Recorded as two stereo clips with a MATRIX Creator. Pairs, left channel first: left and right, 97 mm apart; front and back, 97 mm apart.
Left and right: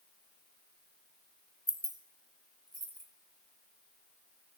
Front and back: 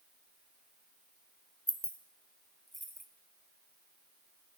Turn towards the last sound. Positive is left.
turn(degrees=-90)